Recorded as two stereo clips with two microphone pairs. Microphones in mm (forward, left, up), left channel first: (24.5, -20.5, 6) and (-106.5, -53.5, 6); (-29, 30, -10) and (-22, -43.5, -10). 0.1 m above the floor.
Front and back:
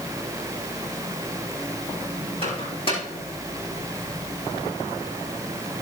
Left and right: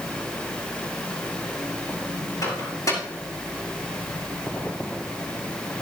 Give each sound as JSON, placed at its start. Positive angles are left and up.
{"t": 2.4, "sound": "a microwave", "azimuth_deg": 60, "distance_m": 5.5}